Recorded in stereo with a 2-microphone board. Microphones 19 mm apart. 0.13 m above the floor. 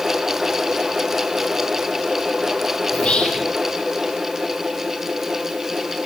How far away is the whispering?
About 5.5 m.